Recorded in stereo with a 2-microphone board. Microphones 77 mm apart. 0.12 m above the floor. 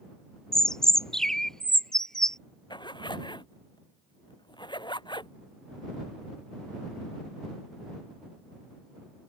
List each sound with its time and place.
0.5 s a bird: 5° left (ahead or behind)
2.7 s a zipper: 75° left (ahead or behind)